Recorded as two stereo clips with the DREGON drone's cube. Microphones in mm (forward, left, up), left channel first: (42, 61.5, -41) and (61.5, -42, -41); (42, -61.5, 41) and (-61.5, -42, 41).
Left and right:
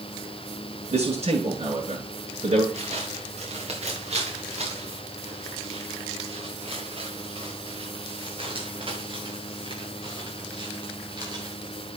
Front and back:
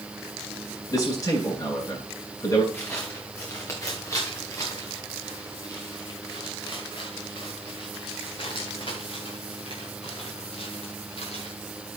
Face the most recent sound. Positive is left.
turn(degrees=-30)